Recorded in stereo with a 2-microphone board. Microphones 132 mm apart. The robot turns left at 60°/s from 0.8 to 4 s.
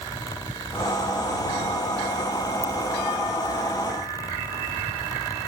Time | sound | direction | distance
2.6 | a ringtone | 80° left | ?